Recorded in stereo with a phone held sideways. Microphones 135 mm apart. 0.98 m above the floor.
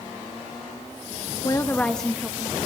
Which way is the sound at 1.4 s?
30° left (ahead or behind).